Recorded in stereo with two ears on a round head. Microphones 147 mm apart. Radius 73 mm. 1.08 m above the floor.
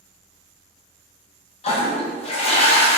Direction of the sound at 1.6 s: 35° left (ahead or behind).